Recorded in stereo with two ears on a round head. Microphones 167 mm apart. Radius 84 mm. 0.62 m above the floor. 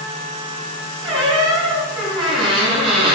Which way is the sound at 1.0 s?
30° right (ahead or behind).